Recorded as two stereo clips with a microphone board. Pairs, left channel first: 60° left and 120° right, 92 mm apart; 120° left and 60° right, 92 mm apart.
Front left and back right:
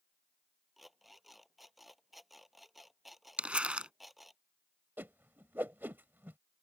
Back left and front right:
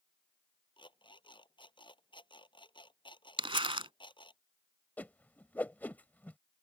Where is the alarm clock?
150° left.